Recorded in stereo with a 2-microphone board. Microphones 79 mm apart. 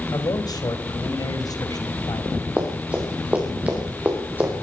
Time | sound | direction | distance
0.1 | a man speaking | 60° left (ahead or behind) | 3 m
2.6 | running footsteps | 20° right (ahead or behind) | 6.5 m